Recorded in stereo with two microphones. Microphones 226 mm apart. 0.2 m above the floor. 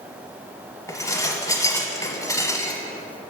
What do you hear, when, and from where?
0.9 s dishes clattering: 15° left (ahead or behind), 0.8 m